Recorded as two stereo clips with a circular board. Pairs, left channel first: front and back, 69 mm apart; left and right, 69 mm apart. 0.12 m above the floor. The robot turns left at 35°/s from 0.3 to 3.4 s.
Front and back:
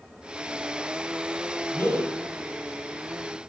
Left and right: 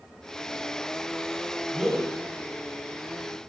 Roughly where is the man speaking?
Ahead.